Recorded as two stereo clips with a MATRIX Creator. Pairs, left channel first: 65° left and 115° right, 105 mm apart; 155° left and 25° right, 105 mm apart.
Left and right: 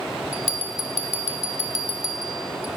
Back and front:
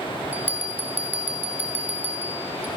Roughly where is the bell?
Right.